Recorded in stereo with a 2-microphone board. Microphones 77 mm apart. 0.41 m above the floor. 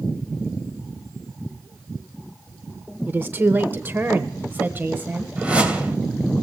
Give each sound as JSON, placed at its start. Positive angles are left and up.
{"t": 3.1, "sound": "a woman speaking", "side_deg": -25, "distance_m": 0.8}
{"t": 5.4, "sound": "a whoosh", "side_deg": -20, "distance_m": 2.5}